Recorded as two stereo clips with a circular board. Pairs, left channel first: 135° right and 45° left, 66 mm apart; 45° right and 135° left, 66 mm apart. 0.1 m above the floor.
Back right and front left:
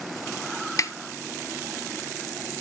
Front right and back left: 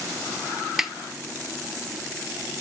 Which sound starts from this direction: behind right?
A snare drum, at 0.8 s.